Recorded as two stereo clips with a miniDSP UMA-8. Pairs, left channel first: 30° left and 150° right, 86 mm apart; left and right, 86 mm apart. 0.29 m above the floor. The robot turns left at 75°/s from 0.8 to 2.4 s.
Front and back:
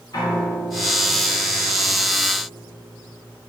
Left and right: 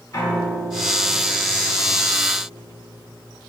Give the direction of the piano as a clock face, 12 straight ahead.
10 o'clock.